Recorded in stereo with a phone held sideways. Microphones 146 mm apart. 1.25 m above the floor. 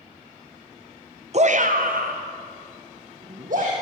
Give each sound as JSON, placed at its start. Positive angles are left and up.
{"t": 1.3, "sound": "a shout", "side_deg": -50, "distance_m": 0.7}